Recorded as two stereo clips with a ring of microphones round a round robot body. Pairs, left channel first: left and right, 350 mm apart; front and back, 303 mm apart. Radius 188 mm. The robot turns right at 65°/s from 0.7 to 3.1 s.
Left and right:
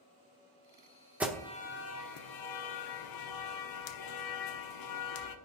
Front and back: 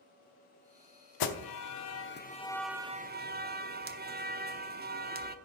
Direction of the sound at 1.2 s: 5° right.